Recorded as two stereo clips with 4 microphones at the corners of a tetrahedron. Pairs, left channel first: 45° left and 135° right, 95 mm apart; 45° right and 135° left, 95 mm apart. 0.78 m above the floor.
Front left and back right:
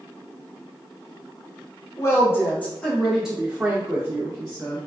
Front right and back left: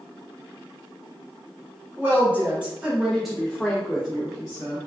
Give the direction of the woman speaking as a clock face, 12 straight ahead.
9 o'clock.